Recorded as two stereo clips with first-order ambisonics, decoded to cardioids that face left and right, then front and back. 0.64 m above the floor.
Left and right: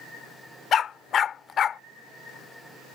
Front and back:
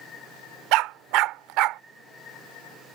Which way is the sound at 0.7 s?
150° left.